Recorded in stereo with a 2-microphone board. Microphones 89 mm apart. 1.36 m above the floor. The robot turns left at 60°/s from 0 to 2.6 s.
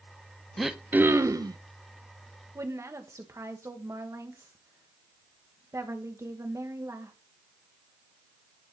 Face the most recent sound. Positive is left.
turn(degrees=-35)  # may be behind; listen again after turning